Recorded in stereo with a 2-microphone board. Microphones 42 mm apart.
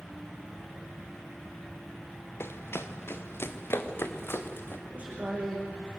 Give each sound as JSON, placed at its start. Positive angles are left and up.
{"t": 2.4, "sound": "running footsteps", "side_deg": 75, "distance_m": 1.5}
{"t": 4.9, "sound": "a man speaking", "side_deg": -30, "distance_m": 9.5}